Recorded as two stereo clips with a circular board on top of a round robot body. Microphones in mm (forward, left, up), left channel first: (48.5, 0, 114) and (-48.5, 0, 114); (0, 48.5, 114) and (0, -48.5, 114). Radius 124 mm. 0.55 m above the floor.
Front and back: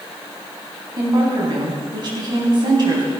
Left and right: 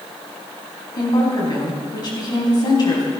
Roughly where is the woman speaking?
Behind left.